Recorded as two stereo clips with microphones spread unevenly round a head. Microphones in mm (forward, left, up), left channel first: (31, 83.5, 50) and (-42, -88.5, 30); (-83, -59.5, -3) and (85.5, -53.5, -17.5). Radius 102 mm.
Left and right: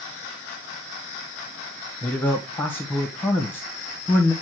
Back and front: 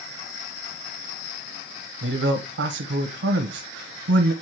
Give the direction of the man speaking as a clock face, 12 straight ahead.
12 o'clock.